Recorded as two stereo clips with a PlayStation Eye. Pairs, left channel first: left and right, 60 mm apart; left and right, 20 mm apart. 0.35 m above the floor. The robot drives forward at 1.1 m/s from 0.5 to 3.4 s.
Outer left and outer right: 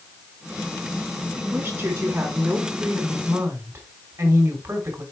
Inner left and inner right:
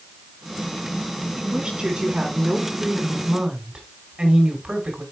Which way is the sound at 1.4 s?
40° right (ahead or behind).